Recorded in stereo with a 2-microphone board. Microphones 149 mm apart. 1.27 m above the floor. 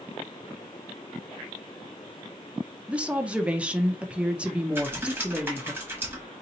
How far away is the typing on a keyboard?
About 1.2 m.